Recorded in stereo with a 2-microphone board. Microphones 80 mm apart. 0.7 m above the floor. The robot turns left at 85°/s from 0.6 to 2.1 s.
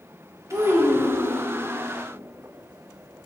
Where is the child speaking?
140° right, 0.7 m; by 1.4 s 145° left, 0.7 m.